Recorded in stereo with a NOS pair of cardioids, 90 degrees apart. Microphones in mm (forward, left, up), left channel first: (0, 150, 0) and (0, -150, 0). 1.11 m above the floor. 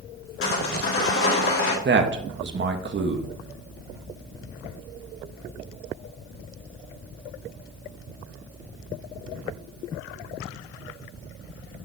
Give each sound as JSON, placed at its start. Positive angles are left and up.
{"t": 0.4, "sound": "sawing", "azimuth_deg": 45, "distance_m": 3.0}
{"t": 1.9, "sound": "a man speaking", "azimuth_deg": -40, "distance_m": 1.4}